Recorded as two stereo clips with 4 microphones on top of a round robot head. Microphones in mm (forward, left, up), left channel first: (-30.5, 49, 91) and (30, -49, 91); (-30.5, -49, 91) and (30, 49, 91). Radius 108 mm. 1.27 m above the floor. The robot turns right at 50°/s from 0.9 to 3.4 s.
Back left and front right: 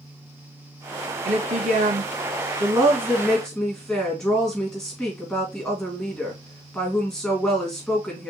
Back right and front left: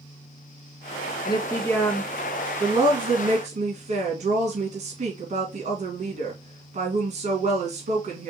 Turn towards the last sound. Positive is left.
turn(degrees=35)